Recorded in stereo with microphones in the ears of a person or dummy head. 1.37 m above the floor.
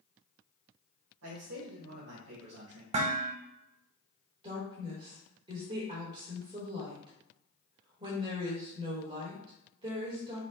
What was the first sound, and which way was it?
A man speaking, 80° right.